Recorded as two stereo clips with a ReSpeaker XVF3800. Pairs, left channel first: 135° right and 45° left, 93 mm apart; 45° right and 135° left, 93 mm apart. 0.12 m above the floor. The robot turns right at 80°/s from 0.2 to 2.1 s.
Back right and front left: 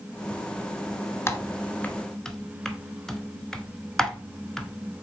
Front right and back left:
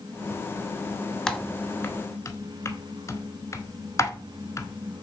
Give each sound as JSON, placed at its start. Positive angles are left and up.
{"t": 1.3, "sound": "typing on a keyboard", "azimuth_deg": -125, "distance_m": 0.9}